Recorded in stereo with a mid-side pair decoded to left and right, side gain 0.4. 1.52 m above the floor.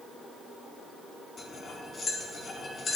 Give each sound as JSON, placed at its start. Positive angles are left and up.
{"t": 1.4, "sound": "cutlery clinking", "azimuth_deg": 45, "distance_m": 2.0}